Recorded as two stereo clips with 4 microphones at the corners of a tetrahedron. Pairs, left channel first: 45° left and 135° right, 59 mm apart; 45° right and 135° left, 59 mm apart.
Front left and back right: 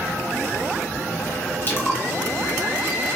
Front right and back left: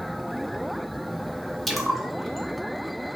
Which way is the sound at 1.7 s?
45° left.